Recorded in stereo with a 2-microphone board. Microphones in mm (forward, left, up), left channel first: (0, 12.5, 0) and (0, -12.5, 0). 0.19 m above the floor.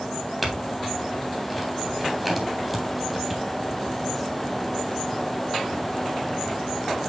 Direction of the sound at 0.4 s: Centre (ahead or behind).